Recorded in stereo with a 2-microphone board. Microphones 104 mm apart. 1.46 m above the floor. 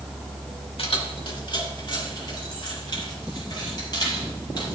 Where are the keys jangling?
60° left (ahead or behind), 1.7 m; by 4.8 s 40° left (ahead or behind), 7 m.